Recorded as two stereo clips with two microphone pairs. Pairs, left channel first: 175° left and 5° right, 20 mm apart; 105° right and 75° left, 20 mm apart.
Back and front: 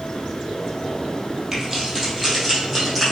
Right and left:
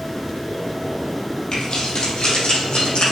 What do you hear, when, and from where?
1.5 s keys jangling: 85° right, 2.5 m; by 3.1 s 100° right, 4 m